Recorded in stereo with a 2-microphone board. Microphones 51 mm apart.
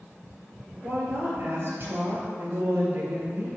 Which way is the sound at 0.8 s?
45° right (ahead or behind).